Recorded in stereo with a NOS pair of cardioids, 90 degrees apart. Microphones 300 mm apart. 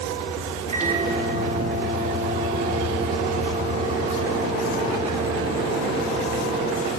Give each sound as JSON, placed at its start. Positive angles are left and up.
{"t": 0.7, "sound": "a microwave", "azimuth_deg": -20, "distance_m": 2.5}